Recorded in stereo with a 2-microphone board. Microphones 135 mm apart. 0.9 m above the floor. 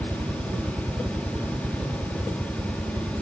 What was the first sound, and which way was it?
A helicopter, 15° right (ahead or behind).